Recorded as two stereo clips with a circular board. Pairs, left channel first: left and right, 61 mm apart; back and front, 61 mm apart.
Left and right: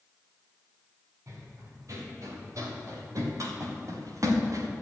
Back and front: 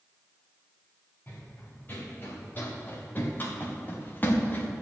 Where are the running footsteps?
125° right, 5 m; by 4.7 s 120° right, 2.5 m.